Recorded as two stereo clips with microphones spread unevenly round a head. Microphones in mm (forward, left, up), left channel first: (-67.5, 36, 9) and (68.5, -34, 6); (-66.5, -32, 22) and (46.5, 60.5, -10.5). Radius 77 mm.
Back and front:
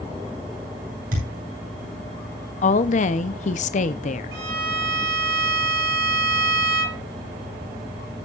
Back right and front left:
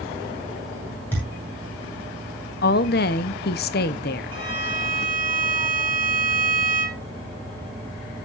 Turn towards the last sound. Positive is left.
turn(degrees=-20)